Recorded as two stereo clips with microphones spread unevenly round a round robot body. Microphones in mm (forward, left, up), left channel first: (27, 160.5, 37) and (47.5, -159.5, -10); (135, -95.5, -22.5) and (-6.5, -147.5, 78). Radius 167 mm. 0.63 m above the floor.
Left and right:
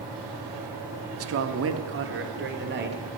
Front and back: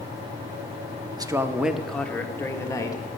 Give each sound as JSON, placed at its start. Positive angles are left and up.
{"t": 1.2, "sound": "a man speaking", "azimuth_deg": -70, "distance_m": 0.9}